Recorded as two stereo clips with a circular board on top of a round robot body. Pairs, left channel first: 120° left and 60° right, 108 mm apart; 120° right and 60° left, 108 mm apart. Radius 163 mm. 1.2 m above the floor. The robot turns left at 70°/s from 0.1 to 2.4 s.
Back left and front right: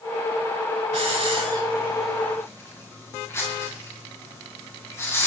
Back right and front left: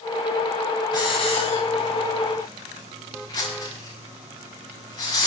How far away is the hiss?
About 10 m.